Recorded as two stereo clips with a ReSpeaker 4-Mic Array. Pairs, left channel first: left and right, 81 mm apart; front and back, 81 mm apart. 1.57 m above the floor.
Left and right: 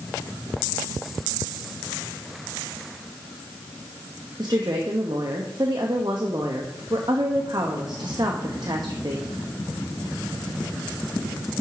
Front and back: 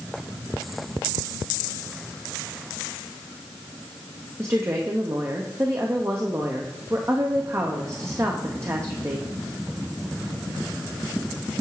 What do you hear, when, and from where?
4.4 s a woman speaking: 125° right, 0.9 m